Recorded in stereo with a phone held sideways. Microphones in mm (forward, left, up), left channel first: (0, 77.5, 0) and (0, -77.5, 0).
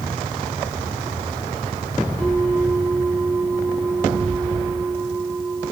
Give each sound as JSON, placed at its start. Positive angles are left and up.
{"t": 2.2, "sound": "a bell", "side_deg": 5, "distance_m": 7.0}